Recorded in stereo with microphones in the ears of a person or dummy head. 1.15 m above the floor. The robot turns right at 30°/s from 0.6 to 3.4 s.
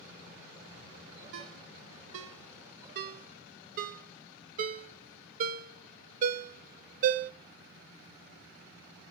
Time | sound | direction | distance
1.3 | a ringtone | 60° right (ahead or behind) | 0.7 m